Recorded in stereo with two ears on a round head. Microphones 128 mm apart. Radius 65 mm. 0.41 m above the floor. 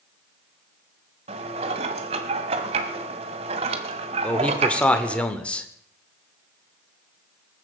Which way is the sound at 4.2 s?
10° left (ahead or behind).